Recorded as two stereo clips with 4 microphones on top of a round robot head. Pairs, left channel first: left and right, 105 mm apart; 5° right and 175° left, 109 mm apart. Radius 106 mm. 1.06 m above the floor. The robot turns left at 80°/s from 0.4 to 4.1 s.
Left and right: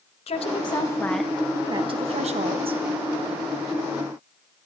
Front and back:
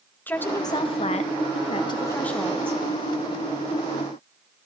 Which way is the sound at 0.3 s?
65° left.